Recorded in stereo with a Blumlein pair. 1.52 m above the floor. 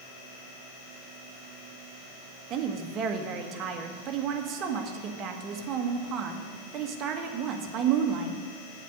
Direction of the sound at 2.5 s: 30° right.